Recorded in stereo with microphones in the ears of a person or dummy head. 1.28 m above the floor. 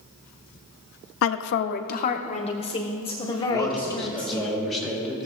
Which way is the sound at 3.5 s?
Centre (ahead or behind).